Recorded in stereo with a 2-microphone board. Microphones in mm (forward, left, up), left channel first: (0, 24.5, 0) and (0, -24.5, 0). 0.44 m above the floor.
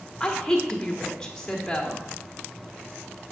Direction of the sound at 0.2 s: 10° left (ahead or behind).